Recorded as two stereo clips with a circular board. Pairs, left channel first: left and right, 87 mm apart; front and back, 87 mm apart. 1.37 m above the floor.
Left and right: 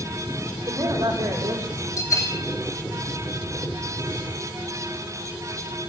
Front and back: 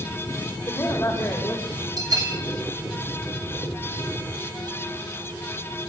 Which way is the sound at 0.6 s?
50° right.